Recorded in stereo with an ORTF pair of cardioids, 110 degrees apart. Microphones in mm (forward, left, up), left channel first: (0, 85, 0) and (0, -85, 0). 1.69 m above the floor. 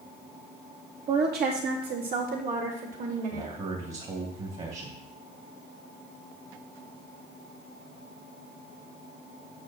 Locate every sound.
1.1 s a woman speaking: 65° right, 3 m; by 3.5 s 45° right, 4 m
3.3 s a man speaking: 40° right, 3 m